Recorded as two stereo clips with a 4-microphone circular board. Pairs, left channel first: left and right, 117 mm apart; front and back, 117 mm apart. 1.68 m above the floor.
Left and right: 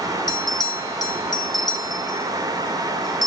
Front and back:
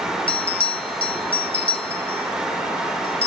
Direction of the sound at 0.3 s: 35° left.